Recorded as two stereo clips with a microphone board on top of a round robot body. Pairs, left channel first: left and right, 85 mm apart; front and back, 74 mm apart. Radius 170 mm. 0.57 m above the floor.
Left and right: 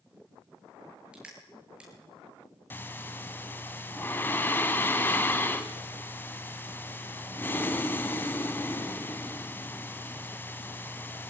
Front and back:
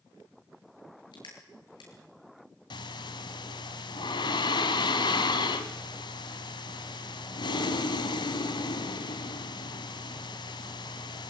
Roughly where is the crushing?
Ahead.